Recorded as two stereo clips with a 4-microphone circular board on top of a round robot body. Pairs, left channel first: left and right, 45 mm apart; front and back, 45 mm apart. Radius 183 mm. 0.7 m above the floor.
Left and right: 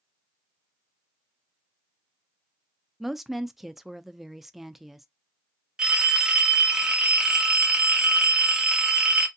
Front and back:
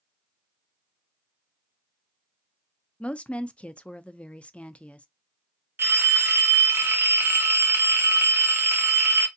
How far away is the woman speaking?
About 0.6 m.